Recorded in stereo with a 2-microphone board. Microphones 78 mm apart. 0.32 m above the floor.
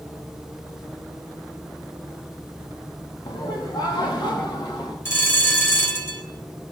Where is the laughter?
65° left (ahead or behind), 3.5 m; by 5.0 s 70° left (ahead or behind), 4 m.